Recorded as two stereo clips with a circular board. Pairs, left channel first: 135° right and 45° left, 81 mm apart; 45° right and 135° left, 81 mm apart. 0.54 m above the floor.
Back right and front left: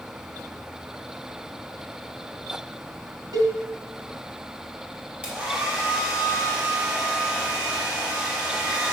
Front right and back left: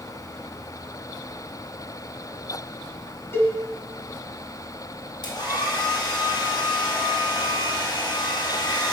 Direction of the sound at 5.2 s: 35° right.